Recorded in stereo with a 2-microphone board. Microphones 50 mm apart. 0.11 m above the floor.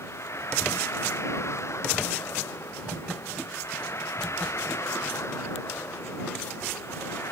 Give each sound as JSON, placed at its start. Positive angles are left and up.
{"t": 0.0, "sound": "a vehicle", "side_deg": 60}